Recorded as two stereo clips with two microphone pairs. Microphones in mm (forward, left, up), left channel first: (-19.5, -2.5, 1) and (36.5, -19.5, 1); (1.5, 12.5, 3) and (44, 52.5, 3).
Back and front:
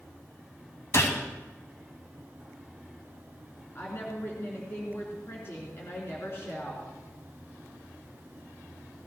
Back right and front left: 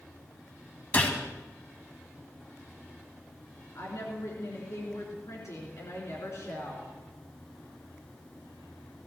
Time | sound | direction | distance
0.9 | a gunshot | 170° left | 2 m
3.8 | a woman speaking | 155° right | 3 m